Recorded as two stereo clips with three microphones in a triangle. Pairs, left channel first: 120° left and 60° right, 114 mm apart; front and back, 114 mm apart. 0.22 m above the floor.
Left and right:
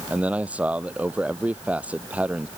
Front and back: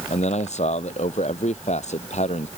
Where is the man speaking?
20° left.